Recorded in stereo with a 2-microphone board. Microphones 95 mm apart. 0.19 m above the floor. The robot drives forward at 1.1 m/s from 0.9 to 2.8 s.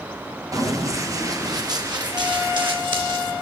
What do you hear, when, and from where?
0.5 s running footsteps: 35° right (ahead or behind), 2.5 m; by 3.3 s 55° right (ahead or behind), 2.5 m